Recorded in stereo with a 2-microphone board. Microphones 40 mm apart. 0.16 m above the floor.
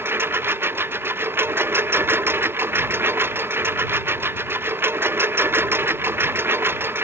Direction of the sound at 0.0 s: 70° right (ahead or behind).